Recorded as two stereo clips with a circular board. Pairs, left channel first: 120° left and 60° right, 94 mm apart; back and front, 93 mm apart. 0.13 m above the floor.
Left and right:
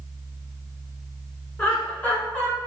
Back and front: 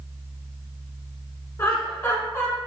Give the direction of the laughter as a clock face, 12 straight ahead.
6 o'clock.